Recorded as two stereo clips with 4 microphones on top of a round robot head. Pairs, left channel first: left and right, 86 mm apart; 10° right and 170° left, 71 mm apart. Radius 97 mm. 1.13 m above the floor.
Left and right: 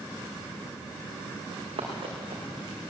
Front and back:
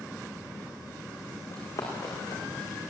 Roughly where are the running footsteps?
Ahead right.